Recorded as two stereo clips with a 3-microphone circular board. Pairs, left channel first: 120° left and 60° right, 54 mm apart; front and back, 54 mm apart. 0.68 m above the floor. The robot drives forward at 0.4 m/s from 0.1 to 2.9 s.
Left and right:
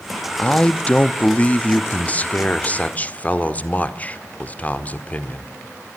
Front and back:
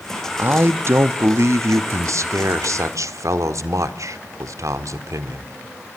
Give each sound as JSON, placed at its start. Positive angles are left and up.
{"t": 0.4, "sound": "a man speaking", "azimuth_deg": 175, "distance_m": 0.6}